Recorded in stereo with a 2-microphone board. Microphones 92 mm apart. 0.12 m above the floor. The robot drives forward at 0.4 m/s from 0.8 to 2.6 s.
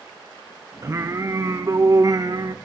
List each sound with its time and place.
0.8 s singing: 35° right (ahead or behind), 2.5 m; by 2.5 s 45° right (ahead or behind), 1.9 m